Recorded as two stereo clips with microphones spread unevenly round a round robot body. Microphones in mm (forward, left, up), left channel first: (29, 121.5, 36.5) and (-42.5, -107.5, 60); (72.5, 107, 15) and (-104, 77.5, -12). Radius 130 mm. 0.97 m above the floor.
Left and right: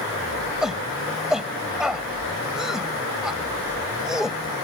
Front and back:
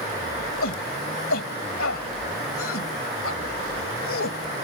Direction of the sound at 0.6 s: 20° right.